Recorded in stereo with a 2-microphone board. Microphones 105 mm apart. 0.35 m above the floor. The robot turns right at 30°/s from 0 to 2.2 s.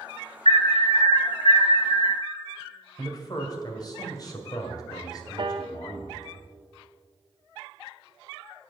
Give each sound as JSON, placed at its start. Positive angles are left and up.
{"t": 0.5, "sound": "an alarm", "azimuth_deg": 70, "distance_m": 3.0}
{"t": 3.0, "sound": "a man speaking", "side_deg": 35, "distance_m": 1.9}
{"t": 5.4, "sound": "a piano", "side_deg": -50, "distance_m": 0.6}